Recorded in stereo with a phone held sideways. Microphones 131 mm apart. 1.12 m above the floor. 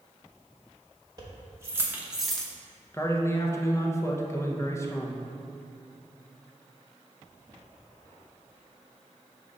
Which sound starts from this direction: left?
A man speaking, at 2.9 s.